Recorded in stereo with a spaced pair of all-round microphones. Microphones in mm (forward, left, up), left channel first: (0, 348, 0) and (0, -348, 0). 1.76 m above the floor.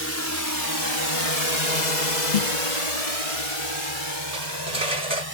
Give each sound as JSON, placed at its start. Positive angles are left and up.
{"t": 0.0, "sound": "a drone", "side_deg": 20}
{"t": 2.3, "sound": "a snare drum", "side_deg": 75}
{"t": 4.3, "sound": "cutlery clinking", "side_deg": -70}